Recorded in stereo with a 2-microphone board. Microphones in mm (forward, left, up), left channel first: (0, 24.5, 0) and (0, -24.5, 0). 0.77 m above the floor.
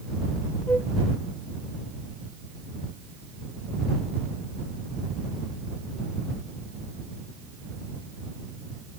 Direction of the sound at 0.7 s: 30° left (ahead or behind).